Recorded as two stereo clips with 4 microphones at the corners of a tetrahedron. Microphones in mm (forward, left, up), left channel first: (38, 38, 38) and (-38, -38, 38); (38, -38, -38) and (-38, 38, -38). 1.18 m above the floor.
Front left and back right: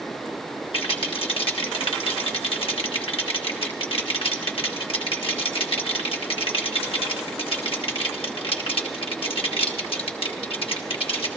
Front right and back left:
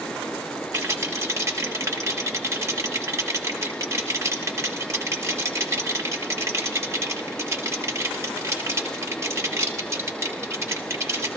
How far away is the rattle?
About 1.5 m.